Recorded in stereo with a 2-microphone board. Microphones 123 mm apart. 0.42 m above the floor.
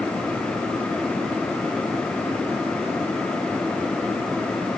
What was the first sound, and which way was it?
Only background noise.